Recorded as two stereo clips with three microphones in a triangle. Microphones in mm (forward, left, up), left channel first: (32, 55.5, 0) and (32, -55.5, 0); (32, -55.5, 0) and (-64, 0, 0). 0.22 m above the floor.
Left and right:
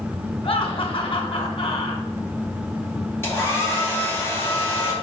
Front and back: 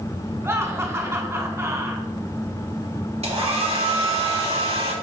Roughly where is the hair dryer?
Behind left.